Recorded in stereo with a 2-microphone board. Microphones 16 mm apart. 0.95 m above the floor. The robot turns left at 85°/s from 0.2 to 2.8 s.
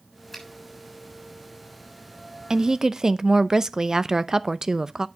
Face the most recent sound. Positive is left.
turn(degrees=-40)  # may be behind; listen again after turning